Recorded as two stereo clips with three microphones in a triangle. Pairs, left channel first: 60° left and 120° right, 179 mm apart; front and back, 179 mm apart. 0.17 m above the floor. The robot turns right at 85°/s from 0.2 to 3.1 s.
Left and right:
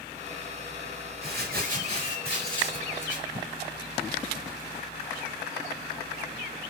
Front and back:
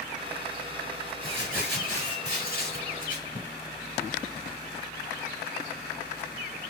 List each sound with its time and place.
1.2 s crumpling: 135° right, 3 m; by 3.5 s 30° left, 3 m